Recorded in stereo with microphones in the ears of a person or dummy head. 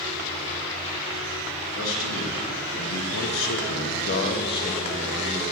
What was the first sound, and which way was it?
A man speaking, 80° left.